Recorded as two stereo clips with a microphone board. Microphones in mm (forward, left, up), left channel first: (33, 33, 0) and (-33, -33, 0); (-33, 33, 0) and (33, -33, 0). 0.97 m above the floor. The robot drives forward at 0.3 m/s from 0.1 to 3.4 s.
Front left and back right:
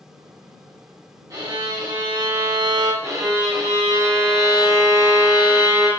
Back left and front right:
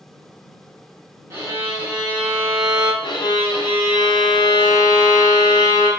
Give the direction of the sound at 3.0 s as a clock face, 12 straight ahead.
6 o'clock.